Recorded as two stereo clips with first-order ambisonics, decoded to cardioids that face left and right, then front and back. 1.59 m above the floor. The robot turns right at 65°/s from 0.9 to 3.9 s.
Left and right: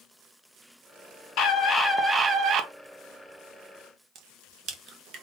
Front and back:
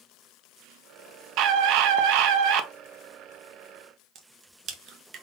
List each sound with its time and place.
1.4 s a scream: 140° left, 0.8 m; by 2.7 s 135° right, 0.8 m
4.2 s a crack: 130° right, 0.8 m